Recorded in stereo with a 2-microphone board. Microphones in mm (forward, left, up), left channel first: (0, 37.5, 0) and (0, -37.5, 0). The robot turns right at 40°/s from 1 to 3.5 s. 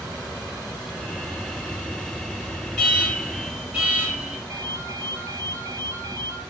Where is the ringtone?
45° right (ahead or behind), 5.5 m.